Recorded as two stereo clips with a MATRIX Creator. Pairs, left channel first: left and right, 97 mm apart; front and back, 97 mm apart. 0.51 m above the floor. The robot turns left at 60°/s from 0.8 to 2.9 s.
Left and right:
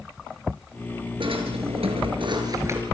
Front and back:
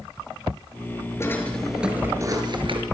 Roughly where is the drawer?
Ahead right.